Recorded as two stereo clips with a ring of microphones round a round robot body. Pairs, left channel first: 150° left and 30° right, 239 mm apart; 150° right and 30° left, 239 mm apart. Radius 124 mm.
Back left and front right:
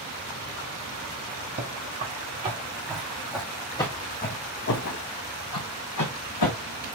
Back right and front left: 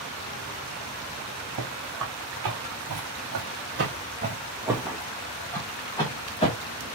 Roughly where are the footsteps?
Ahead left.